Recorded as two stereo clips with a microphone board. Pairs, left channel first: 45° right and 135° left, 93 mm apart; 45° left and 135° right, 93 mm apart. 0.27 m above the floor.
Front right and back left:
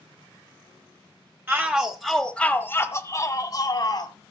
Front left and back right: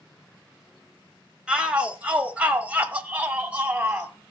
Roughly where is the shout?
Behind.